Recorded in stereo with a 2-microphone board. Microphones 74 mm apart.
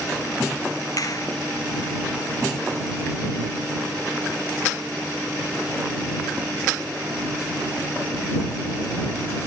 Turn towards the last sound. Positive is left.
turn(degrees=55)  # may be behind; listen again after turning